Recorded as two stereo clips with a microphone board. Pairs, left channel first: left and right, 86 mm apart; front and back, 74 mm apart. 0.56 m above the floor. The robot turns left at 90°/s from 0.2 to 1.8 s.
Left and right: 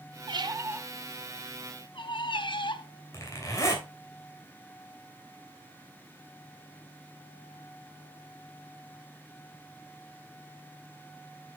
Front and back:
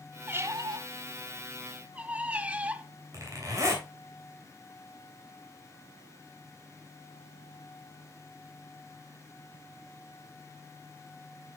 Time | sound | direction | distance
0.3 | a squeak | 115° right | 0.6 m
3.1 | a zipper | 140° left | 2.5 m